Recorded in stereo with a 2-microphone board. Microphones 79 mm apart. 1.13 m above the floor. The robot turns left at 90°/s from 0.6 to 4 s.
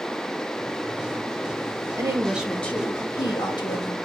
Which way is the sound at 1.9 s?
135° right.